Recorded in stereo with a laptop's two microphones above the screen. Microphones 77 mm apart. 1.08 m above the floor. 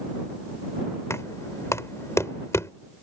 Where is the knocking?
40° left (ahead or behind).